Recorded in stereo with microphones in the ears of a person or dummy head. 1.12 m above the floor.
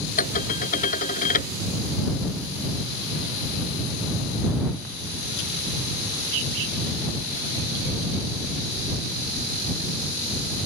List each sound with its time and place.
0.2 s dishes clattering: 45° left (ahead or behind)